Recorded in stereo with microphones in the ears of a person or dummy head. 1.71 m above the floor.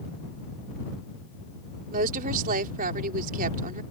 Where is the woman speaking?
45° right (ahead or behind).